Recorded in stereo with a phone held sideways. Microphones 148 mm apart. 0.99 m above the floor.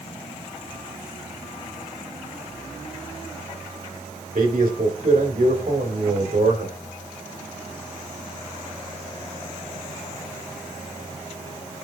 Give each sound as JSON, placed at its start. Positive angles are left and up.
{"t": 4.3, "sound": "a man speaking", "side_deg": -75, "distance_m": 4.5}